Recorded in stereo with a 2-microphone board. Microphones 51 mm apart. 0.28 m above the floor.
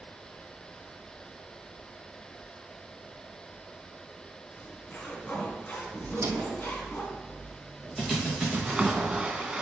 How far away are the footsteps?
About 0.5 m.